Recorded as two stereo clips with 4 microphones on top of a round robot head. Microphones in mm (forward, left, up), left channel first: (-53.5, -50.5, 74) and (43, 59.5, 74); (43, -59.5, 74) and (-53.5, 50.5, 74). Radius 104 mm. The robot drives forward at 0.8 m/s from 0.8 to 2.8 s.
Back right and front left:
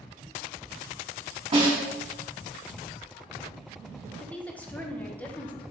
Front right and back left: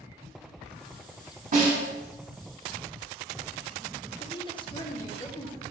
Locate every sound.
1.5 s a snare drum: 100° left, 3 m; by 1.8 s 105° left, 3 m
4.2 s a woman speaking: 60° right, 1.0 m